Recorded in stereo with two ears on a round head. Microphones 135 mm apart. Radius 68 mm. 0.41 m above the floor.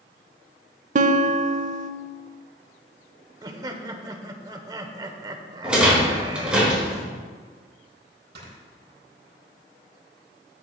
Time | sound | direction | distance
0.9 | a guitar | 55° right (ahead or behind) | 0.6 m
3.4 | laughter | 25° right (ahead or behind) | 1.0 m
5.6 | a rattle | 5° right (ahead or behind) | 3.5 m
8.3 | snoring | 75° right (ahead or behind) | 3.5 m